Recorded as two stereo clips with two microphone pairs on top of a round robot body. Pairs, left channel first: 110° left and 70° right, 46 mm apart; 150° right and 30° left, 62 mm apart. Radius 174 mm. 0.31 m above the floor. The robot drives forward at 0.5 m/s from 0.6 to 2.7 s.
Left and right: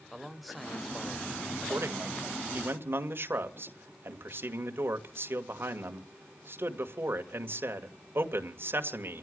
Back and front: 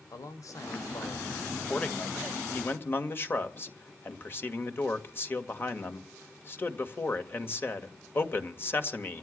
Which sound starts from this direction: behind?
A man speaking, at 0.1 s.